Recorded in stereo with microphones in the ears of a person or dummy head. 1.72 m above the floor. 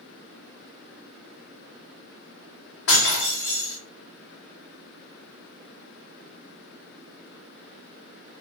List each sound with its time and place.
2.9 s breaking glass: 65° left (ahead or behind), 2.0 m